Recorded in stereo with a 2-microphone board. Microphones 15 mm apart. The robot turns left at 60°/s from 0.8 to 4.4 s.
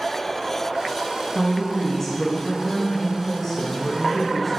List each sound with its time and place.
1.4 s a woman speaking: 5° left (ahead or behind), 1.6 m; by 4.6 s 5° right (ahead or behind), 1.6 m